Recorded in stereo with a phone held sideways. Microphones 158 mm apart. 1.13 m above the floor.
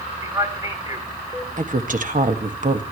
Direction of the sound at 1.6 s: 55° right (ahead or behind).